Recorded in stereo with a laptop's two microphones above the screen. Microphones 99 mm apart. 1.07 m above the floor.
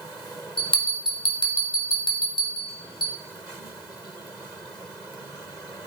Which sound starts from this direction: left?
A bell, at 0.6 s.